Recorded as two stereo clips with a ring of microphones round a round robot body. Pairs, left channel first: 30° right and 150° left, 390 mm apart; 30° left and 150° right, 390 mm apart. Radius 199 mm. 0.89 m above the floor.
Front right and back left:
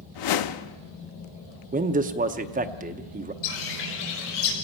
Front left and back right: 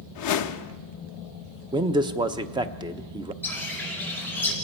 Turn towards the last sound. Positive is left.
turn(degrees=-55)